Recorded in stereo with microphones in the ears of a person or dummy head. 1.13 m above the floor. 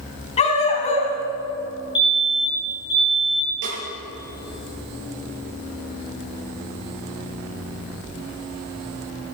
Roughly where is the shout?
I don't hear a shout.